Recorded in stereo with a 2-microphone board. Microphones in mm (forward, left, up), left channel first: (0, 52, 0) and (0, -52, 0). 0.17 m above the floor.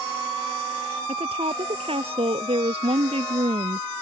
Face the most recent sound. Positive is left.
turn(degrees=-70)  # may be behind; listen again after turning